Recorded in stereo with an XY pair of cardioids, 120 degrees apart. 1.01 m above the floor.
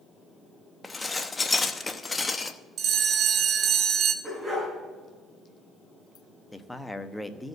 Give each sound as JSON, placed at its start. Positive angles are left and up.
{"t": 0.8, "sound": "dishes clattering", "azimuth_deg": 20, "distance_m": 0.8}
{"t": 2.8, "sound": "a bell", "azimuth_deg": -50, "distance_m": 1.1}
{"t": 4.2, "sound": "a dog barking", "azimuth_deg": -10, "distance_m": 6.5}
{"t": 6.5, "sound": "a man speaking", "azimuth_deg": 10, "distance_m": 1.0}